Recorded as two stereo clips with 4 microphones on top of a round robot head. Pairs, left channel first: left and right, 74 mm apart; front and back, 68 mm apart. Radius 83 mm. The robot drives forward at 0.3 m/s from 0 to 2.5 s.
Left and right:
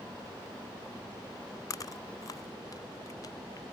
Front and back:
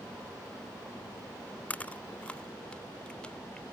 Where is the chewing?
65° left; by 3.6 s 70° left.